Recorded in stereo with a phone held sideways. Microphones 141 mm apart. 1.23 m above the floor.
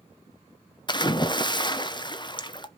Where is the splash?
35° left (ahead or behind), 0.7 m.